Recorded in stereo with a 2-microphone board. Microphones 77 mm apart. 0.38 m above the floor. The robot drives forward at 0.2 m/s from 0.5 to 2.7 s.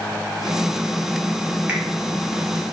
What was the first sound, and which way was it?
A finger snap, 20° right (ahead or behind).